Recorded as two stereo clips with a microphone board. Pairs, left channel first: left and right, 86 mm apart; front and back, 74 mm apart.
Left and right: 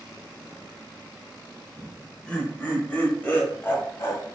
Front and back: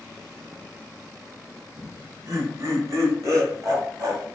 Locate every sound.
1.8 s laughter: 175° left, 1.6 m; by 4.2 s 150° left, 2.5 m